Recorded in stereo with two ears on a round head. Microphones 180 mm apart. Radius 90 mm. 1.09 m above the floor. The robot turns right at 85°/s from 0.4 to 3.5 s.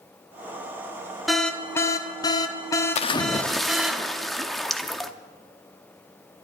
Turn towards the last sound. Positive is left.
turn(degrees=180)